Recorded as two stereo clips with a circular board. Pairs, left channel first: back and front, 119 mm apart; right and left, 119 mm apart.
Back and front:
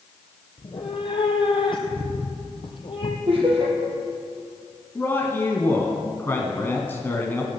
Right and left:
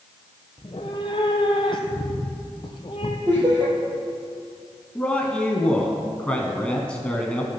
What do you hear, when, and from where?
0.6 s a cat meowing: 135° right, 1.3 m
3.3 s laughter: 40° left, 4 m
5.0 s a man speaking: 155° right, 1.3 m